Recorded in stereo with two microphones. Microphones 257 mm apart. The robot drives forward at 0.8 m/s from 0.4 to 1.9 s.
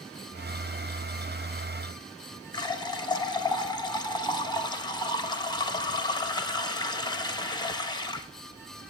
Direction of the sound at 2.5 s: 15° left (ahead or behind).